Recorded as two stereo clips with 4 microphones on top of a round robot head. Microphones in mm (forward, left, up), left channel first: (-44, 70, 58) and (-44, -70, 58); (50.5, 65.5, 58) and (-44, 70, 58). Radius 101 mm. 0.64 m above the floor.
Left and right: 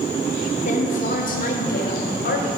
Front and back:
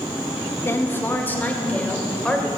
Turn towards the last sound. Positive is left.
turn(degrees=80)